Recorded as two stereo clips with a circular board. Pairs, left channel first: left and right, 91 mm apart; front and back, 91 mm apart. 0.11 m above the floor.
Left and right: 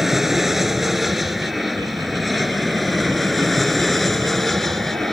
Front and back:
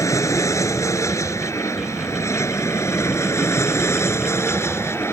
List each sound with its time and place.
0.0 s an aircraft: 5° right; by 5.1 s 5° left